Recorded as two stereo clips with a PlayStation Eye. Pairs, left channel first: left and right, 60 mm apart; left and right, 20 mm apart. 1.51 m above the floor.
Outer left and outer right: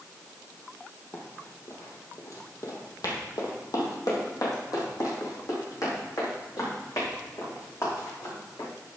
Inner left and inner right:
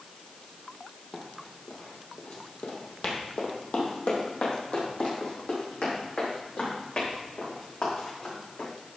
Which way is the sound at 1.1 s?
40° left (ahead or behind).